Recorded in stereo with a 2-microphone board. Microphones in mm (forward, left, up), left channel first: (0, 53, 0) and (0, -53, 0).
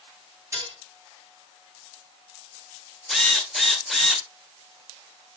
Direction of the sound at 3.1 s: Centre (ahead or behind).